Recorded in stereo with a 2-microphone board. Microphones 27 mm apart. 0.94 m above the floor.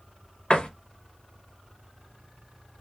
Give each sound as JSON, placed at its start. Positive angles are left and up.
{"t": 0.5, "sound": "a door slam", "side_deg": 35, "distance_m": 0.7}